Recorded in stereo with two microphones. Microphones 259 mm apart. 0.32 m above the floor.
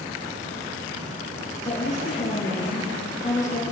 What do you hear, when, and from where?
1.6 s a woman speaking: 30° left (ahead or behind), 6.5 m